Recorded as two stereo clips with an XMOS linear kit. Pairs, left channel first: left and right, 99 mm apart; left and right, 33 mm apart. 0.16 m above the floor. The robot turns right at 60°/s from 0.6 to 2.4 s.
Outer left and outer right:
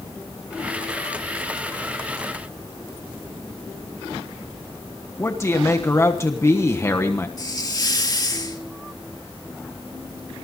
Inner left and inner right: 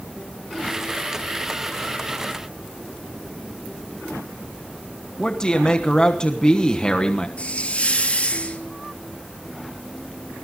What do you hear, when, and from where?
5.2 s a man speaking: 25° left (ahead or behind), 1.2 m
7.4 s a hiss: 40° left (ahead or behind), 2.5 m